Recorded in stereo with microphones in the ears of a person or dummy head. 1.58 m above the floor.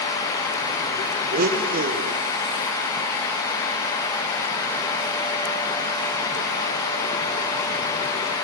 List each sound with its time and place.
1.3 s a blender: 45° right (ahead or behind), 1.2 m